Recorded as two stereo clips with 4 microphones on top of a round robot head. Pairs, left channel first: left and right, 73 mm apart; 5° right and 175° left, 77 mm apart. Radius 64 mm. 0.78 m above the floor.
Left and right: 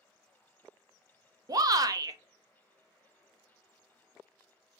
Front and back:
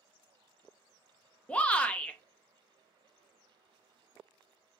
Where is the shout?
75° right, 0.6 m.